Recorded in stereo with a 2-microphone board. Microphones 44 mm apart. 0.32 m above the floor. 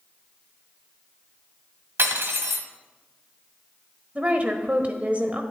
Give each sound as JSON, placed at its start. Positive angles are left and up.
{"t": 2.0, "sound": "cutlery clinking", "side_deg": -60, "distance_m": 1.3}
{"t": 4.2, "sound": "a woman speaking", "side_deg": -35, "distance_m": 1.1}